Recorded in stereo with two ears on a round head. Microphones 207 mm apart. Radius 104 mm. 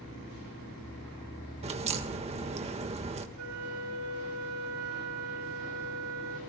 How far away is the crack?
About 1.6 m.